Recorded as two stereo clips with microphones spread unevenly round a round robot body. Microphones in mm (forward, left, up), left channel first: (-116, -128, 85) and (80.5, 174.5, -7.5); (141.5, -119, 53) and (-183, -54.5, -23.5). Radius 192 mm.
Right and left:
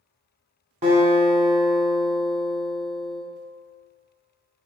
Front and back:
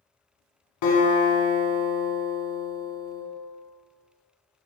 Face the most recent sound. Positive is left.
turn(degrees=-20)